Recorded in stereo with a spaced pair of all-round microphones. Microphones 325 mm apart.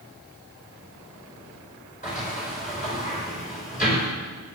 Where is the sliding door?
25° left (ahead or behind), 4.5 m.